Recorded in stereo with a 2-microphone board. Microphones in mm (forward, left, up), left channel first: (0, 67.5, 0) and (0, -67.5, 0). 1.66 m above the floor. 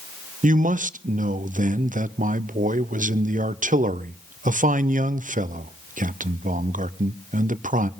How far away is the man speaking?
About 0.7 m.